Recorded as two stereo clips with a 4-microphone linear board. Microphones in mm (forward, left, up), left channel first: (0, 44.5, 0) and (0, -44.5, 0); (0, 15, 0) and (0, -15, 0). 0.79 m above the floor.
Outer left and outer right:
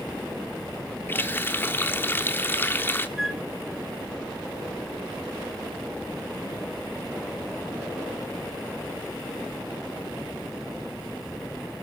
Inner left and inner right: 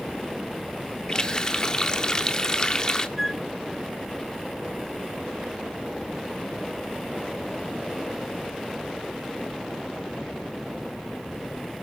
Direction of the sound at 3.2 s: 5° right (ahead or behind).